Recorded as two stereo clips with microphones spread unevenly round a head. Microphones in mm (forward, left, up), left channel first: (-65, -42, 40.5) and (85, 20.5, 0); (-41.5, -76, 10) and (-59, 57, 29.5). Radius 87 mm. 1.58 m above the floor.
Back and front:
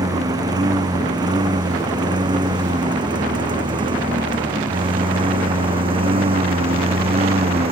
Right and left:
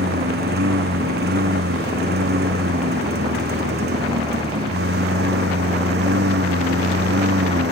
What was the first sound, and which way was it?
A lawn mower, 95° left.